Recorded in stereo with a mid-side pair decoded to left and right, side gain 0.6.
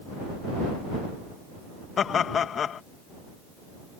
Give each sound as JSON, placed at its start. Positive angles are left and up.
{"t": 2.0, "sound": "laughter", "azimuth_deg": 40}